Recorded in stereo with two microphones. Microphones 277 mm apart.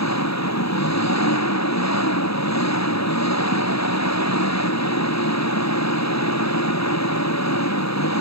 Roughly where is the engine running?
Left.